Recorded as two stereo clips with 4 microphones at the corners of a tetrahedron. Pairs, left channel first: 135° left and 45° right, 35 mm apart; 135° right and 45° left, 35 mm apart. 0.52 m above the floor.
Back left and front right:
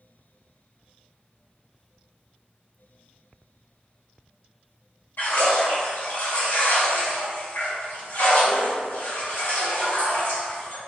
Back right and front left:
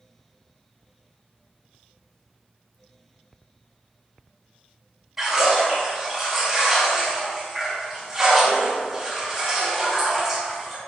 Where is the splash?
125° left, 2 m.